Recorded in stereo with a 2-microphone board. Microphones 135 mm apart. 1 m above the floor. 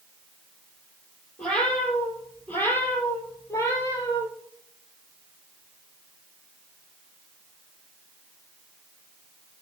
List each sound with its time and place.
1.4 s a cat meowing: 5° left (ahead or behind), 5 m; by 4.3 s 25° left (ahead or behind), 4 m